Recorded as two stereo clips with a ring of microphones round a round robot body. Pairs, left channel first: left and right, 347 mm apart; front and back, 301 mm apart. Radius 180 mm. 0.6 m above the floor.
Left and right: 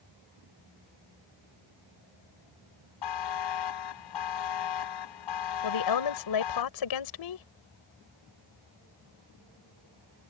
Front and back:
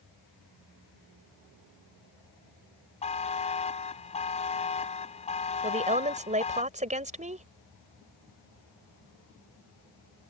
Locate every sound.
3.0 s a buzzer: 70° left
5.6 s a woman speaking: 115° left